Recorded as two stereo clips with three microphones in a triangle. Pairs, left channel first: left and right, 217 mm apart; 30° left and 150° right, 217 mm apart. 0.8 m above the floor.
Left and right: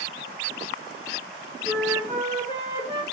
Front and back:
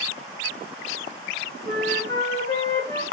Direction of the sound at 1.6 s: 135° right.